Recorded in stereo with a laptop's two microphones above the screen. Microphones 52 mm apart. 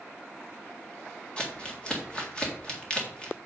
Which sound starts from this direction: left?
Crumpling, at 1.4 s.